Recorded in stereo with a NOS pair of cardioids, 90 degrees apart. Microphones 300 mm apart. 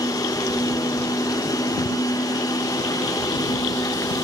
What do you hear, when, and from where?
0.0 s a machine running: 10° left, 1.1 m